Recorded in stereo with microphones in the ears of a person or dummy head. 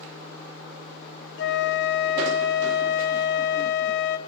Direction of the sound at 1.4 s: 55° left (ahead or behind).